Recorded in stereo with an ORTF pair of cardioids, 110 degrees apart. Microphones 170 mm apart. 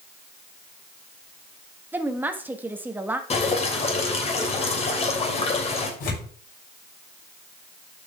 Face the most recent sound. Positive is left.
turn(degrees=60)